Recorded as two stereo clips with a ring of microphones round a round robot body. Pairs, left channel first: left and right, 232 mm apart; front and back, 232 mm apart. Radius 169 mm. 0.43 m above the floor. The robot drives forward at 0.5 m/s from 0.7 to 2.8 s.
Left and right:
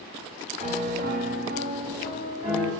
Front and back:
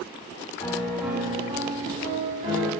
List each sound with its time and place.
0.6 s a piano: 70° right, 1.1 m; by 2.7 s 140° right, 1.4 m